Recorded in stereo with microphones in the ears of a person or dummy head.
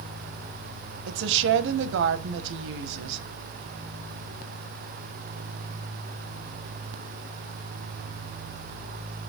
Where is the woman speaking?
75° right (ahead or behind), 0.6 m.